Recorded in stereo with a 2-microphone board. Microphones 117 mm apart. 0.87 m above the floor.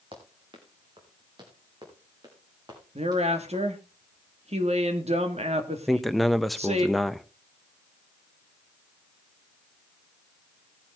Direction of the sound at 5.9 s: Centre (ahead or behind).